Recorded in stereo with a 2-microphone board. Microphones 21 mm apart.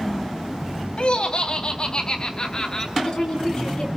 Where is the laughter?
55° left (ahead or behind), 1.8 m; by 2.9 s 35° left (ahead or behind), 2 m.